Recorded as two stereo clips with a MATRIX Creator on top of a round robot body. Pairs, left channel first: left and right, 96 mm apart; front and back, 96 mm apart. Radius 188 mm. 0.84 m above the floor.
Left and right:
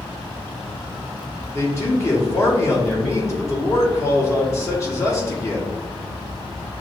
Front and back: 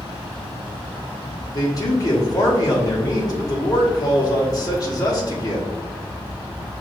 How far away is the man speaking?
About 1.4 m.